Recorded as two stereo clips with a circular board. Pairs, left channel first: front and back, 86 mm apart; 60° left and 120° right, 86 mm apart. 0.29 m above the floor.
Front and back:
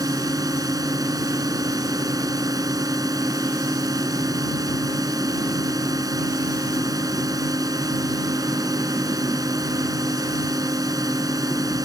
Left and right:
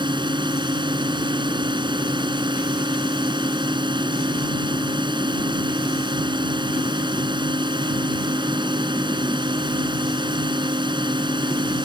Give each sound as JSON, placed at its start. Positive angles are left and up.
{"t": 0.0, "sound": "a drone", "azimuth_deg": -140}